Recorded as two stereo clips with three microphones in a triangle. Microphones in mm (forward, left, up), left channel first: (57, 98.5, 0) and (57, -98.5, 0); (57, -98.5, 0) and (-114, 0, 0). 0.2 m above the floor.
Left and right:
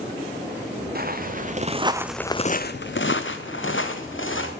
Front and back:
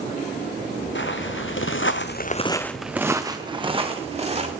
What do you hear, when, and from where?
0.9 s footsteps: 50° right, 1.8 m; by 4.5 s 95° left, 3 m